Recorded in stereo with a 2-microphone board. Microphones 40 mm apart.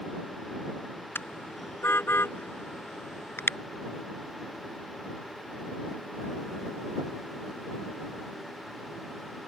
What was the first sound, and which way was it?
A car horn, 80° left.